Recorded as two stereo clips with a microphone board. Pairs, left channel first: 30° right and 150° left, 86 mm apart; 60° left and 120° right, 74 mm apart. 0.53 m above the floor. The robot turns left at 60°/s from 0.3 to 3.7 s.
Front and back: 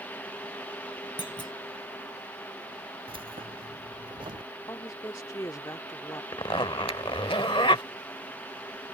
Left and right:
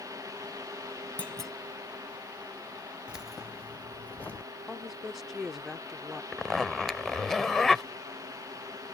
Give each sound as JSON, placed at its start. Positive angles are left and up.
{"t": 1.2, "sound": "a clunk", "azimuth_deg": -10}
{"t": 3.1, "sound": "keys jangling", "azimuth_deg": 165}
{"t": 4.7, "sound": "a woman speaking", "azimuth_deg": -35}
{"t": 6.3, "sound": "a zipper", "azimuth_deg": -25}